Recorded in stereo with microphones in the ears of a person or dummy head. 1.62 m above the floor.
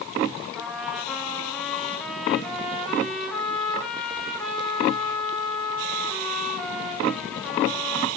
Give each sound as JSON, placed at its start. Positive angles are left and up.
{"t": 0.6, "sound": "a trumpet", "side_deg": 0, "distance_m": 1.3}